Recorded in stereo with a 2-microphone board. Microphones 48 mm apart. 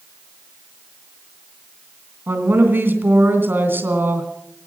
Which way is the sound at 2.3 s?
50° right (ahead or behind).